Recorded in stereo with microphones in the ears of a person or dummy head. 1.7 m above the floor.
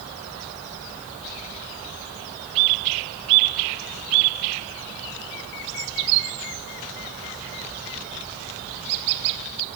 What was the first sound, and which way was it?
Only background noise.